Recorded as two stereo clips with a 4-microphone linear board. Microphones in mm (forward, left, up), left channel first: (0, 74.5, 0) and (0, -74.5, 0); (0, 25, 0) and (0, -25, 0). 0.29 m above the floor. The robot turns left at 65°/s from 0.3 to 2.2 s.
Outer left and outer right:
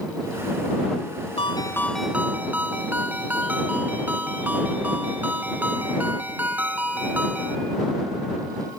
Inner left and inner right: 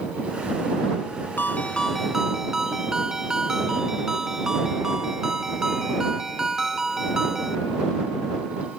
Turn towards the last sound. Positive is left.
turn(degrees=-10)